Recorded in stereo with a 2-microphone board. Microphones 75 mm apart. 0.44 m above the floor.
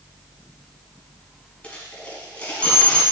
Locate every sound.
1.6 s a dropped coin: 15° left (ahead or behind), 1.2 m